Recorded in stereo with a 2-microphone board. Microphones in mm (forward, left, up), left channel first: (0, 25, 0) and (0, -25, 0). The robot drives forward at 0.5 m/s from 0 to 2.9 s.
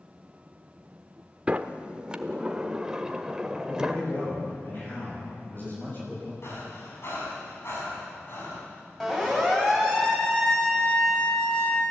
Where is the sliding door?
25° right (ahead or behind), 0.8 m; by 4.0 s 15° right (ahead or behind), 1.2 m.